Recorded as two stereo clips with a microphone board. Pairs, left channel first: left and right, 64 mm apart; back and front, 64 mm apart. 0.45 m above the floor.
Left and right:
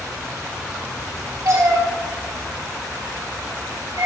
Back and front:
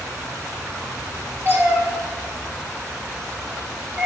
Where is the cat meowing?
55° right, 5 m; by 4.1 s 70° right, 5 m.